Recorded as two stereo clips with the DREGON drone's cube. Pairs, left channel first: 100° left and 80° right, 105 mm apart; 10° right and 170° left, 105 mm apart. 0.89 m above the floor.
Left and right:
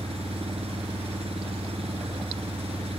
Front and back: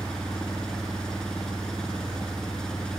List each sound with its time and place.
0.0 s an engine running: 95° right